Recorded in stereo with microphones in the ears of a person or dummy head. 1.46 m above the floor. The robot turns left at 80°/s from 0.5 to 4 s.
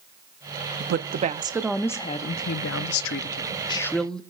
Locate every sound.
0.8 s a woman speaking: 100° right, 0.6 m; by 4.2 s 5° left, 0.6 m